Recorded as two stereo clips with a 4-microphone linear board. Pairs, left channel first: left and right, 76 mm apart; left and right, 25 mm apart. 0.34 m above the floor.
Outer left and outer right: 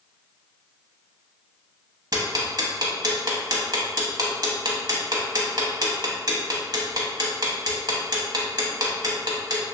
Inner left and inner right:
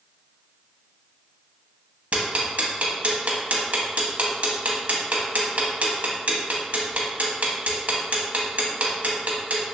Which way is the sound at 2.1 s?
60° right (ahead or behind).